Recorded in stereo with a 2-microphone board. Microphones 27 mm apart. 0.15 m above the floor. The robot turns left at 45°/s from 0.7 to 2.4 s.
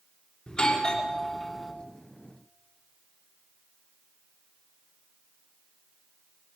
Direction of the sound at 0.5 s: 40° left.